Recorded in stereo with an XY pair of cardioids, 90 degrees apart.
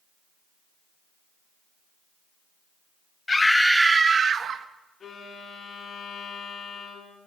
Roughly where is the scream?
Ahead left.